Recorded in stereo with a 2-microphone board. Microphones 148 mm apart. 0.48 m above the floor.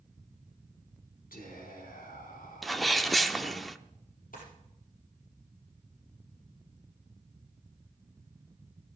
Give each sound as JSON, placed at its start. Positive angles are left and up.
{"t": 1.3, "sound": "whispering", "side_deg": 75, "distance_m": 5.0}
{"t": 2.6, "sound": "a sneeze", "side_deg": 0, "distance_m": 0.7}
{"t": 4.3, "sound": "a drawer", "side_deg": 70, "distance_m": 5.5}